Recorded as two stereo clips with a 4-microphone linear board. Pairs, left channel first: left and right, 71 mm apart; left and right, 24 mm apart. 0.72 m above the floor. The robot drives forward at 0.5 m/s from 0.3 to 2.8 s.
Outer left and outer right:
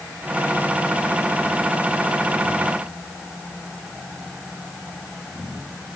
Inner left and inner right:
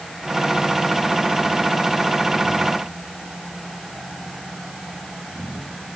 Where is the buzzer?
No buzzer in this recording.